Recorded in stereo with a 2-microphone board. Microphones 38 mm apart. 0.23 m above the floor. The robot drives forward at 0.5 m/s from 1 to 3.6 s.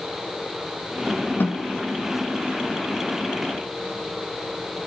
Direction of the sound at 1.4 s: 75° left (ahead or behind).